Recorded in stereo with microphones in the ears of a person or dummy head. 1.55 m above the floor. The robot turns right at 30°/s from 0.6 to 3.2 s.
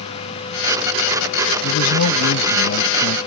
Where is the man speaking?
85° left; by 3.2 s 130° left.